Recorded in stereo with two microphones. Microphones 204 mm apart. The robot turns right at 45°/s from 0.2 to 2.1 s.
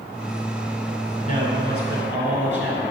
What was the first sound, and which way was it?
A man speaking, 40° left.